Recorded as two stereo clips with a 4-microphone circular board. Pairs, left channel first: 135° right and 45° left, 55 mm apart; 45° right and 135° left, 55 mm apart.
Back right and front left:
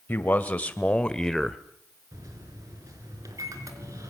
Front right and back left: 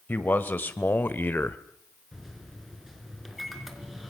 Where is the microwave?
50° left, 3.5 m.